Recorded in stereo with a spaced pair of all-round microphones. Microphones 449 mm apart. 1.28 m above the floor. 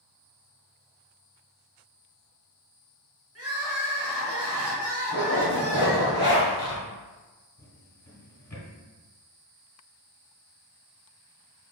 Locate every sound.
3.4 s crying: 30° right (ahead or behind), 1.3 m
5.1 s a zipper: 65° right (ahead or behind), 1.8 m
7.6 s a drawer: 35° left (ahead or behind), 1.3 m